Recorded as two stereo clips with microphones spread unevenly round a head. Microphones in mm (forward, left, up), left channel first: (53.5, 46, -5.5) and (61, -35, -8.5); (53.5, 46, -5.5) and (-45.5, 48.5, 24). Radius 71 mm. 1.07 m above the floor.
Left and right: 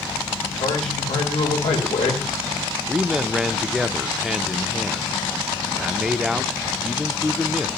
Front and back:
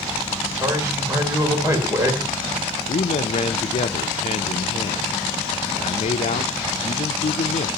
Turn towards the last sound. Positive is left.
turn(degrees=0)